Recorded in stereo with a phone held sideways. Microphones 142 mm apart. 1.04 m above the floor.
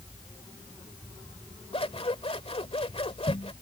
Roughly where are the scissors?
Left.